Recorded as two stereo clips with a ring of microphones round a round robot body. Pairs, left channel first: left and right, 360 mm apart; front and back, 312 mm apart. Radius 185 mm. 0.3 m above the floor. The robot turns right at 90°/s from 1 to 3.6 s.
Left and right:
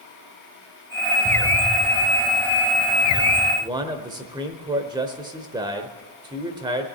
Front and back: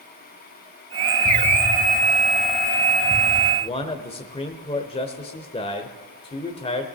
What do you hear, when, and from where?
1.2 s an explosion: 45° right, 1.7 m; by 3.5 s 160° left, 1.7 m
3.6 s a man speaking: 35° right, 0.9 m; by 6.9 s 30° right, 0.9 m